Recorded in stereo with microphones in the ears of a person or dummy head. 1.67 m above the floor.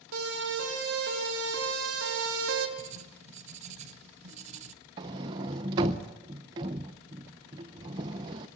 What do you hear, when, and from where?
0.1 s a siren: 80° right, 6.5 m; by 2.7 s 85° right, 2.5 m
2.8 s writing: 40° right (ahead or behind), 1.0 m
5.0 s a sliding door: 20° right (ahead or behind), 0.8 m